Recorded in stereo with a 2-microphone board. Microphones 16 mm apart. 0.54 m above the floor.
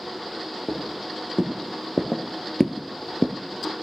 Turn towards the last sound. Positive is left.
turn(degrees=5)  # may be behind; listen again after turning